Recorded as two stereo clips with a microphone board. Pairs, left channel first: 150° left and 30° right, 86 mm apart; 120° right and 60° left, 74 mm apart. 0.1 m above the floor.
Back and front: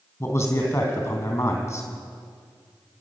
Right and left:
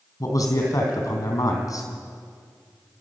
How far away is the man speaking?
About 3.5 m.